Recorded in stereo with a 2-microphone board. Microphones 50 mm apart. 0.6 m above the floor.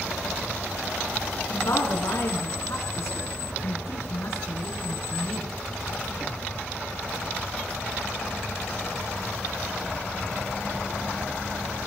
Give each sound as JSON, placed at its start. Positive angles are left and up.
{"t": 1.5, "sound": "a woman speaking", "side_deg": 80, "distance_m": 5.5}